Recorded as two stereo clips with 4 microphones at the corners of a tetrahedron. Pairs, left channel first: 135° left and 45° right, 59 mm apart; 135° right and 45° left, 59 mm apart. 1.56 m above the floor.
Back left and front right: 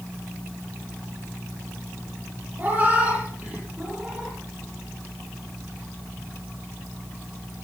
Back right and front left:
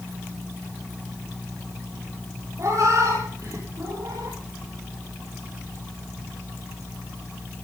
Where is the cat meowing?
15° left, 9 m; by 4.4 s 30° left, 9.5 m.